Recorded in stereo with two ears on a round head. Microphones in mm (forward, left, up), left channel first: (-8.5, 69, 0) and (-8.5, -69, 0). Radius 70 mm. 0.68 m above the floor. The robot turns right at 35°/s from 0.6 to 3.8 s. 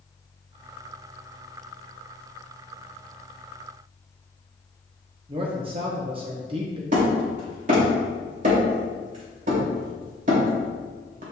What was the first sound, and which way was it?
A man speaking, 35° right (ahead or behind).